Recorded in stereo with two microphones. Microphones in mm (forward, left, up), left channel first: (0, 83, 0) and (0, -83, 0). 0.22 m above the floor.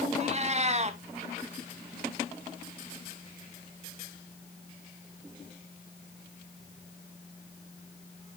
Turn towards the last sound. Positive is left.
turn(degrees=-40)  # may be behind; listen again after turning